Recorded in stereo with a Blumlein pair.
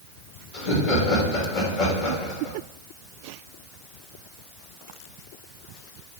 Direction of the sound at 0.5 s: 40° left.